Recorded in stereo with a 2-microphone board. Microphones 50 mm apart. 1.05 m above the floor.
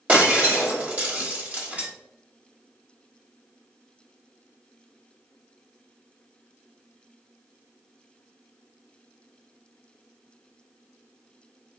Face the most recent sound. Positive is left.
turn(degrees=-30)  # may be behind; listen again after turning